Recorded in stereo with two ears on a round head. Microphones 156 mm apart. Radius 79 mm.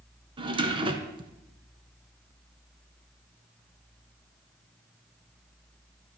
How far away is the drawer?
About 1.4 m.